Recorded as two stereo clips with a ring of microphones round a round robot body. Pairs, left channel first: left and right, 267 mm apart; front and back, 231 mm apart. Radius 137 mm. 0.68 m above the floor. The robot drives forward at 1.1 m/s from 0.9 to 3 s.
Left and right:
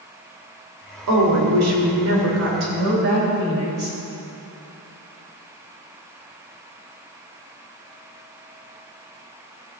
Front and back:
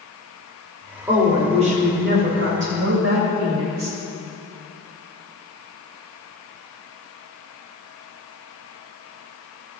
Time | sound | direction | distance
1.1 | a woman speaking | 100° right | 2 m